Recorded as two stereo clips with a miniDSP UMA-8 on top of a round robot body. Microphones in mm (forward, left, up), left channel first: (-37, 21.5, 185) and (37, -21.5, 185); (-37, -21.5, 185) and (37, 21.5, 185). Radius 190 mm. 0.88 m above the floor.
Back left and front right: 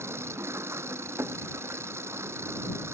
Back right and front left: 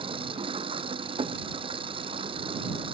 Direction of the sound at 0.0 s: 30° left.